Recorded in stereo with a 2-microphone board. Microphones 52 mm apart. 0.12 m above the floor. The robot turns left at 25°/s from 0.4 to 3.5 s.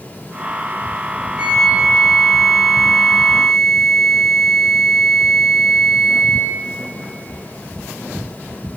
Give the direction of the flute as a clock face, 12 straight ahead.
5 o'clock.